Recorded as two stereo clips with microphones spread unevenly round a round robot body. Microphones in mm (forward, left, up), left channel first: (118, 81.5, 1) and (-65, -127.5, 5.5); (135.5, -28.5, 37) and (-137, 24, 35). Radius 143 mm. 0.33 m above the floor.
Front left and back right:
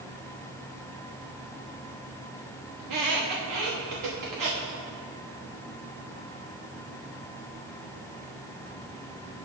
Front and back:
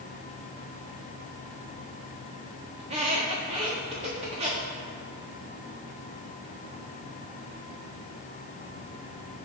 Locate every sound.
2.8 s a squeak: 120° right, 2.5 m